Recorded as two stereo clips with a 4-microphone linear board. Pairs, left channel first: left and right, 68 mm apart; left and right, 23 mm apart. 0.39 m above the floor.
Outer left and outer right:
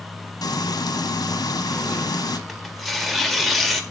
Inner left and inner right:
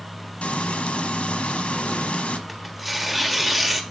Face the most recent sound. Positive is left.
turn(degrees=0)  # may be behind; listen again after turning